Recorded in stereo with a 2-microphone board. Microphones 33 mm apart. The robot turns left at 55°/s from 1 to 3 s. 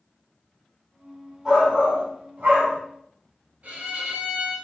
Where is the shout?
5° right, 2.5 m; by 2.8 s 80° right, 2.5 m.